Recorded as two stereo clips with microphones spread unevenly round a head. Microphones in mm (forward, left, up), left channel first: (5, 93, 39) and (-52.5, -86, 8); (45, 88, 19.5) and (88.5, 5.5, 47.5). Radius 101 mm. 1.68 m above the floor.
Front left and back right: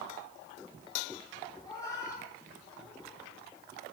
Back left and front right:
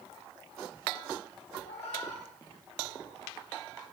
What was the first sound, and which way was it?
A cat meowing, 140° left.